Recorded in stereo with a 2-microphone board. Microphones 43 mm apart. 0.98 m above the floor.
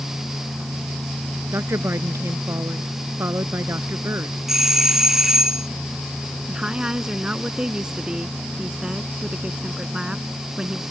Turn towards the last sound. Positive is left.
turn(degrees=-20)  # may be behind; listen again after turning